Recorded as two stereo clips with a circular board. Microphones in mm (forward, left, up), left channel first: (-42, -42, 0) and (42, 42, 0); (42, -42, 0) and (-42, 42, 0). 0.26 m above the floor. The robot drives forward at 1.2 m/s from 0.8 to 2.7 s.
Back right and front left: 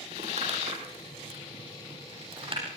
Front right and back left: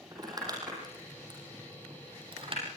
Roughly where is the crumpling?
Left.